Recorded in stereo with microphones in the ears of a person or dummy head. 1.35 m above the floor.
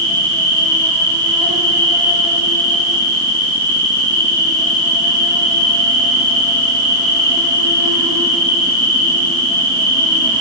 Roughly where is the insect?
Right.